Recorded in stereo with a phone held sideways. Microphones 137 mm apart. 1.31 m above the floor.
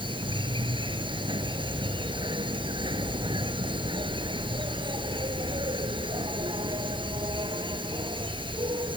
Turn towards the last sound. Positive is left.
turn(degrees=-35)  # may be behind; listen again after turning